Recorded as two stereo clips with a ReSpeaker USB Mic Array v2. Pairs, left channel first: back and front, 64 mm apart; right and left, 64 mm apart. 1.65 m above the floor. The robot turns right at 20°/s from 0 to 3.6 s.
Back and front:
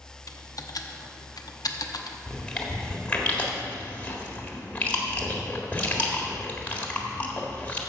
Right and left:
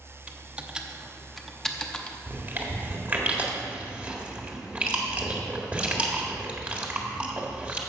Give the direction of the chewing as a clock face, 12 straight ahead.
8 o'clock.